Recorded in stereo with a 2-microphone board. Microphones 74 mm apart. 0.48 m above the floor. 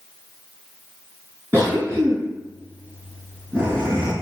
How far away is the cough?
About 4 m.